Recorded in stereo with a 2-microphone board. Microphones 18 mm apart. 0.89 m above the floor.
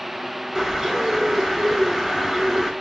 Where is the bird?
15° right (ahead or behind), 6.5 m.